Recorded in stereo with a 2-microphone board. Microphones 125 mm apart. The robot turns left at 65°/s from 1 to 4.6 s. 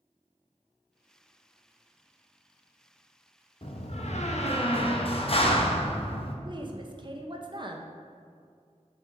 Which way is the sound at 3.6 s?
125° left.